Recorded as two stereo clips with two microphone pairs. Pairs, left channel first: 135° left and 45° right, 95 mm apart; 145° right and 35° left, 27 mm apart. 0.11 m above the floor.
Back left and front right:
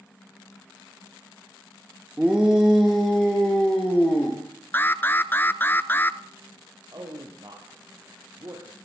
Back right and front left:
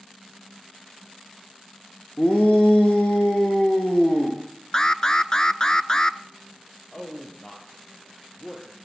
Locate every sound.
2.2 s a shout: 120° right, 4 m; by 4.4 s 160° right, 5 m
4.7 s an alarm: straight behind, 0.9 m
6.9 s a man speaking: 85° right, 4 m